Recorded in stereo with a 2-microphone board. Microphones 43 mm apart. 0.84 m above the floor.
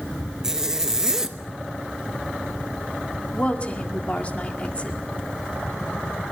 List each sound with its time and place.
0.4 s a zipper: 10° right (ahead or behind), 0.8 m
3.3 s a woman speaking: 35° left (ahead or behind), 1.8 m